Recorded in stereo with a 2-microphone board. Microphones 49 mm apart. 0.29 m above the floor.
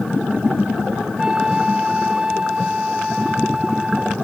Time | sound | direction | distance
1.2 | a flute | 15° right (ahead or behind) | ?